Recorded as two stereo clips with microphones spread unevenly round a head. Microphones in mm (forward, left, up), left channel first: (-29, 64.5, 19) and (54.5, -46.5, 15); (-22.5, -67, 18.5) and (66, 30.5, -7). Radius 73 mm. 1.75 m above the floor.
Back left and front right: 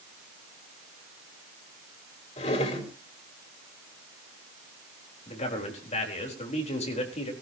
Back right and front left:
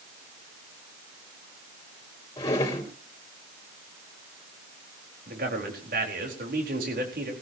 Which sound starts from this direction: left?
A man speaking, at 5.3 s.